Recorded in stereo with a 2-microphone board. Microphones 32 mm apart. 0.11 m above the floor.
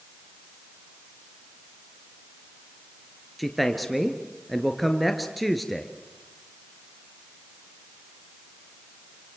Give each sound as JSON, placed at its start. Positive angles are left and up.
{"t": 3.4, "sound": "a man speaking", "side_deg": 0, "distance_m": 2.5}